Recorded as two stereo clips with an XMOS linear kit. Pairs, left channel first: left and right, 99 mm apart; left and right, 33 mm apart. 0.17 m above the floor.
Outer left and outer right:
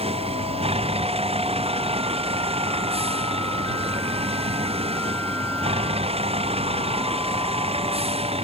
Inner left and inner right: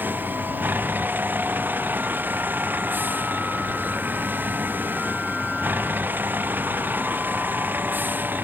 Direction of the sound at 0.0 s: 85° right.